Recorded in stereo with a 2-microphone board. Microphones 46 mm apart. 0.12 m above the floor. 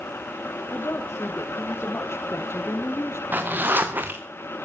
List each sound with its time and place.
0.7 s a woman speaking: 70° left (ahead or behind), 4 m; by 3.2 s 65° left (ahead or behind), 3 m
3.3 s a zipper: 45° right (ahead or behind), 3 m